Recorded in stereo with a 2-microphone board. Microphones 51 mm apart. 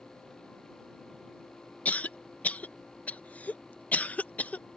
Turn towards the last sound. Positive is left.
turn(degrees=30)  # may be behind; listen again after turning